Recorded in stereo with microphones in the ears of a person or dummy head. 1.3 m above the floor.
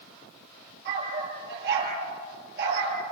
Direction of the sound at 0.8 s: 60° right (ahead or behind).